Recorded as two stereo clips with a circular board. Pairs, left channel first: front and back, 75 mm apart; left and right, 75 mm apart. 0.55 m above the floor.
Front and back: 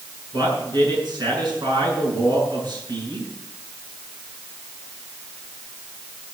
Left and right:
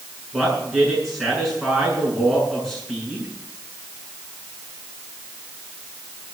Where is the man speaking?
170° left, 8 m.